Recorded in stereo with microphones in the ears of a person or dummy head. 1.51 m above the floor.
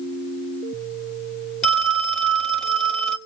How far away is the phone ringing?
About 1.7 m.